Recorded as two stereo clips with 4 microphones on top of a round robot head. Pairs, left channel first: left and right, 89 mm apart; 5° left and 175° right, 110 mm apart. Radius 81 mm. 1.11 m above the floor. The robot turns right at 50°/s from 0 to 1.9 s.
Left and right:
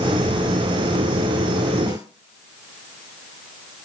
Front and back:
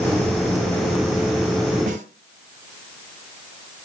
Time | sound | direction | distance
1.9 | a snare drum | 160° right | 2.5 m